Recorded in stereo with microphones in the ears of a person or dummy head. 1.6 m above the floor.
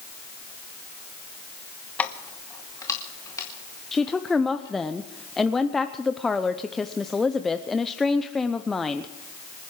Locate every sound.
2.0 s keys jangling: 10° left (ahead or behind), 1.0 m; by 4.7 s 25° left (ahead or behind), 5 m
3.9 s a woman speaking: centre (ahead or behind), 0.6 m